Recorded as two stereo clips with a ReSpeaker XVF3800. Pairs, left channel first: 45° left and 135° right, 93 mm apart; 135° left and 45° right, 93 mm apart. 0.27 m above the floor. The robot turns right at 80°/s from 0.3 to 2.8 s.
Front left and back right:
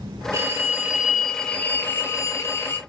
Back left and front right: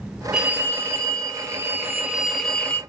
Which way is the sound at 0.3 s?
120° right.